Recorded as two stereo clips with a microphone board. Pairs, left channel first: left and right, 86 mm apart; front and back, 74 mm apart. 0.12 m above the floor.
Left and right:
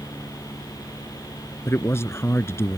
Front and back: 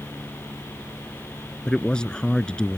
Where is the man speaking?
70° left.